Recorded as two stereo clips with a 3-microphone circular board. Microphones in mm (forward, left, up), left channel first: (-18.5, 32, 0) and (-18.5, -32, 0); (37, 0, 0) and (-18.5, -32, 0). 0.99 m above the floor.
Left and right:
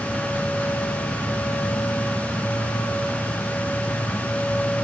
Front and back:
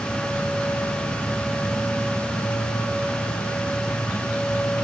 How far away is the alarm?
No alarm in this recording.